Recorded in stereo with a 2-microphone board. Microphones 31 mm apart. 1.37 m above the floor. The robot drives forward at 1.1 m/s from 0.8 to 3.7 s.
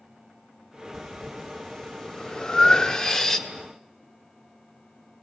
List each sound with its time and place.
0.9 s breathing: 10° left (ahead or behind), 2 m; by 3.5 s 15° left (ahead or behind), 1.4 m